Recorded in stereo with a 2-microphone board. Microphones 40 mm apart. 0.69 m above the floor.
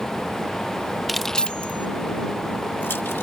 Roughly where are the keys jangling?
Centre.